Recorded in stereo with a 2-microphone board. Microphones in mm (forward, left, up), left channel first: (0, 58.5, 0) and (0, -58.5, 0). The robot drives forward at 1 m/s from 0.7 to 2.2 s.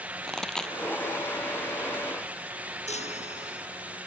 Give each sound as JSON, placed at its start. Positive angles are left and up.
{"t": 0.3, "sound": "a pop", "side_deg": 5}
{"t": 2.9, "sound": "a chime", "side_deg": 70}